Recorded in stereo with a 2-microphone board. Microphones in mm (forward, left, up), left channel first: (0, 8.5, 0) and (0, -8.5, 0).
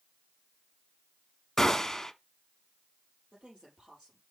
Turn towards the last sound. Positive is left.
turn(degrees=-60)  # may be behind; listen again after turning